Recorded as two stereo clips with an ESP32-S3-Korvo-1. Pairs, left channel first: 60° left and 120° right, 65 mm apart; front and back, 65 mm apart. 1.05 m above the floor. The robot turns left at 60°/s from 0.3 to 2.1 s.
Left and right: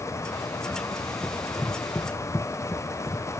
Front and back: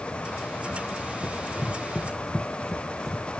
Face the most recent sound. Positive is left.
turn(degrees=95)